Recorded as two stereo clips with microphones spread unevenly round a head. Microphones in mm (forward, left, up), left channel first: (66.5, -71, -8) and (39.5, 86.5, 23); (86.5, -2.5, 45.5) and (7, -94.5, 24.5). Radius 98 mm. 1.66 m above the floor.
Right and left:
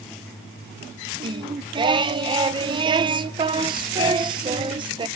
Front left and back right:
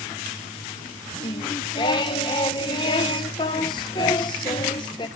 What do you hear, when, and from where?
1.2 s singing: 75° left, 0.8 m